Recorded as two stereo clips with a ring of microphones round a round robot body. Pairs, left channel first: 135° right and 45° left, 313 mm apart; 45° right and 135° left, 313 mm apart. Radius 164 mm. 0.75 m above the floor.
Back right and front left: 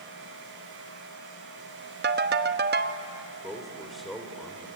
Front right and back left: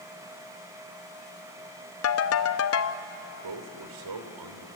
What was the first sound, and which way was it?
A ringtone, 10° right.